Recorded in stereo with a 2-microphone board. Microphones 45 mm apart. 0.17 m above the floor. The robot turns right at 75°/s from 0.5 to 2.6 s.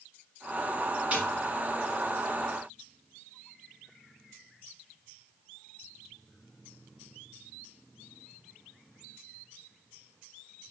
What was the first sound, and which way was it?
A snare drum, 30° right (ahead or behind).